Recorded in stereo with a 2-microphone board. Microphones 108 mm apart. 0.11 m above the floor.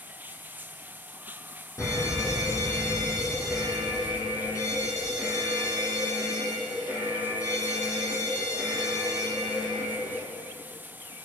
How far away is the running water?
About 0.7 m.